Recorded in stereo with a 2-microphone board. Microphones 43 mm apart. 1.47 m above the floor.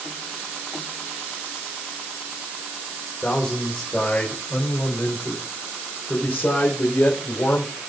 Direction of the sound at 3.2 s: 20° left (ahead or behind).